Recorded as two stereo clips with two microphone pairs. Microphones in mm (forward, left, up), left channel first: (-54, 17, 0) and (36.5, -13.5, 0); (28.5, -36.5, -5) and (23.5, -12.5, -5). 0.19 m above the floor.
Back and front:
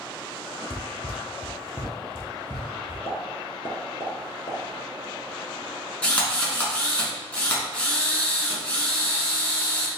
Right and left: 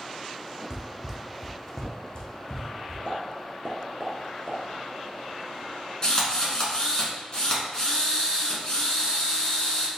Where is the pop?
140° left, 0.8 m.